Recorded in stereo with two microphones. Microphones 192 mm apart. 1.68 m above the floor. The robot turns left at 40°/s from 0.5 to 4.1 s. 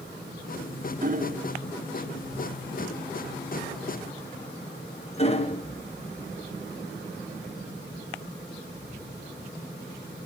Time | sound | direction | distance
1.0 | hammering | 45° right (ahead or behind) | 1.1 m